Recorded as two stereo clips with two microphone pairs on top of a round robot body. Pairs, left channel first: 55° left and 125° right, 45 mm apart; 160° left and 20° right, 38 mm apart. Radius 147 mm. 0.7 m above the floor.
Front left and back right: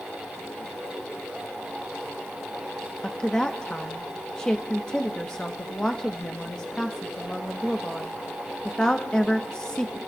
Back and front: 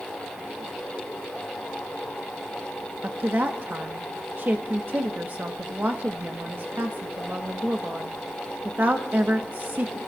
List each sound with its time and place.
3.0 s a woman speaking: 15° right, 1.3 m